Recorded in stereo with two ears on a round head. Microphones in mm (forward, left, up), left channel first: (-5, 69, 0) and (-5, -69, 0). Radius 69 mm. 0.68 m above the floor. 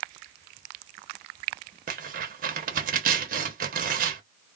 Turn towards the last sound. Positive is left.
turn(degrees=-60)  # may be behind; listen again after turning